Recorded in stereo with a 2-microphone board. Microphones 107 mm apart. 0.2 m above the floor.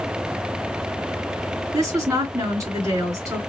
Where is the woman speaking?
30° right (ahead or behind), 2 m.